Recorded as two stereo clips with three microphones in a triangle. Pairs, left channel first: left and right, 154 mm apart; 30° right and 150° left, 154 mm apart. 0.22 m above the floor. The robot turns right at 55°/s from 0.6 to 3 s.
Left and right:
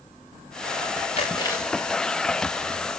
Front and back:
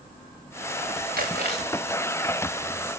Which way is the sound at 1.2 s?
140° left.